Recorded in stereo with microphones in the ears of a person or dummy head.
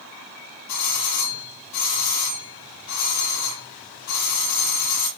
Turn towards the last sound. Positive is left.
turn(degrees=75)  # may be behind; listen again after turning